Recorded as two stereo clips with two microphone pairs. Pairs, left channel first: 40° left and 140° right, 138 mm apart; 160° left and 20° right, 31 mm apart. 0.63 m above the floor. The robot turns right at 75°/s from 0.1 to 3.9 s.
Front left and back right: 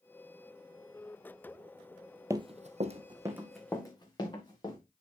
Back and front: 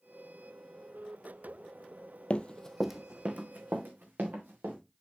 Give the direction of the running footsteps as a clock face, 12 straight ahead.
7 o'clock.